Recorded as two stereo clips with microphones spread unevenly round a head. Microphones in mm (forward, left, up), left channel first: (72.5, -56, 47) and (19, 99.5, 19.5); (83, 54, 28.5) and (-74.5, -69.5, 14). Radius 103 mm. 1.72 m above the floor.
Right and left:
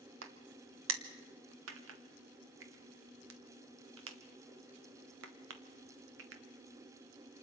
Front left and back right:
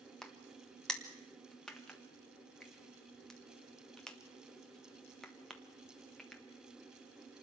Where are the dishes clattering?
No dishes clattering in this recording.